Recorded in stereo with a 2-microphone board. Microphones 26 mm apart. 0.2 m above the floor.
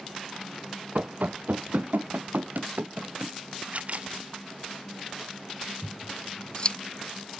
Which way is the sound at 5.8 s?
35° left (ahead or behind).